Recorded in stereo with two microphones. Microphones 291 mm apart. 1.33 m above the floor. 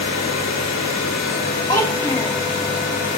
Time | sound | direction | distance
1.7 | a child speaking | 10° left (ahead or behind) | 2 m